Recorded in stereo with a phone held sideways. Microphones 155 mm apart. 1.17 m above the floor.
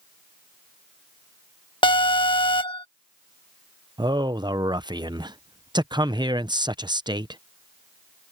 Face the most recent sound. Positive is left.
turn(degrees=-30)  # may be behind; listen again after turning